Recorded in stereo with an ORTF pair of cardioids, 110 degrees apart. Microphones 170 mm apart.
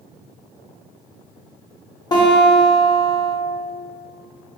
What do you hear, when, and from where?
2.1 s a guitar: 25° left, 0.7 m